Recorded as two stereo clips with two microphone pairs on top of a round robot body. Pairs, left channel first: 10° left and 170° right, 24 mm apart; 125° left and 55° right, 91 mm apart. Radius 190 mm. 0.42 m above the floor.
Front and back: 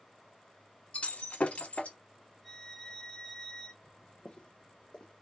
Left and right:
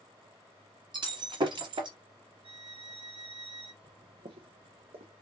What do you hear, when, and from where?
0.9 s breaking glass: 25° right, 1.3 m
2.4 s a violin: 65° right, 1.5 m
3.8 s footsteps: 45° right, 0.6 m; by 5.1 s 50° right, 1.3 m